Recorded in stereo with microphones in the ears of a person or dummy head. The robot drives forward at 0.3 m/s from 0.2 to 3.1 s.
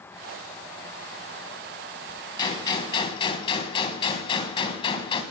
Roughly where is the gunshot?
Left.